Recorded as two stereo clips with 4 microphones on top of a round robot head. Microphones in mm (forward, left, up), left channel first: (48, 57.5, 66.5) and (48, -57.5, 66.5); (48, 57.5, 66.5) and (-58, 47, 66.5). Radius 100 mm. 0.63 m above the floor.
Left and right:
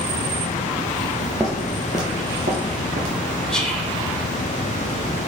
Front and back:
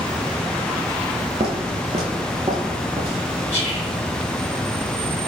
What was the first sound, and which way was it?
Footsteps, straight behind.